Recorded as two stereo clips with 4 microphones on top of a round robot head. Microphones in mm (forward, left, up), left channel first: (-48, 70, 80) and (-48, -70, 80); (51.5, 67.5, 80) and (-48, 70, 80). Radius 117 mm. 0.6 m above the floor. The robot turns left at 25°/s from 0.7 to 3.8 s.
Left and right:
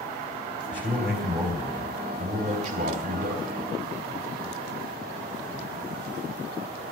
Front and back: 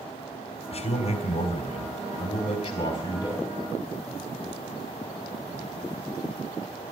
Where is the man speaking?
5° right, 3 m; by 3.4 s 75° right, 3 m.